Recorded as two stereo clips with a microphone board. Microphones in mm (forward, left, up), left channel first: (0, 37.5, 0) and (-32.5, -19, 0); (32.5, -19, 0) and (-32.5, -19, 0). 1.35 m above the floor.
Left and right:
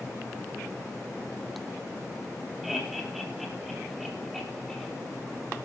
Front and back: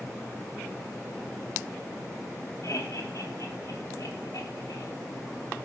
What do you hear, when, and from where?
2.6 s laughter: 35° right, 3.5 m; by 4.9 s 25° right, 4.5 m